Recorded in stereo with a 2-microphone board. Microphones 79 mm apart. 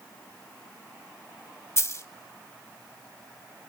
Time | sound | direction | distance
1.8 | a dropped coin | 40° left (ahead or behind) | 0.7 m